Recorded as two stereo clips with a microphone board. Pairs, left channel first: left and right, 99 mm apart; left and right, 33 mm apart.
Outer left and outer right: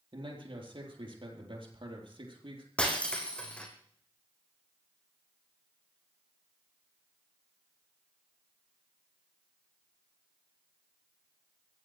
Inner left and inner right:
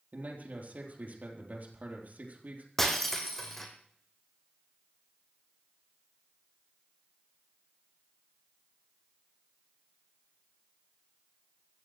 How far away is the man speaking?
About 4 m.